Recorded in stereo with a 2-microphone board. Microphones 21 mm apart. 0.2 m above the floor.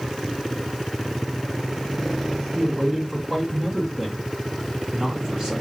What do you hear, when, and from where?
2.5 s a man speaking: 45° right (ahead or behind), 2 m